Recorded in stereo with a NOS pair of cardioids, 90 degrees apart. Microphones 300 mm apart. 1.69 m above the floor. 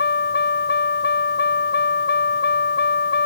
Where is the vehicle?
35° left.